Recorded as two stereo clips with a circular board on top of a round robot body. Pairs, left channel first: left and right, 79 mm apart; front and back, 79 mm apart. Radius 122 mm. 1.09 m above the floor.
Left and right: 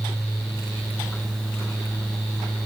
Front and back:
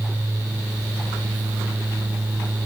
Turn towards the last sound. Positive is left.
No sound to turn to.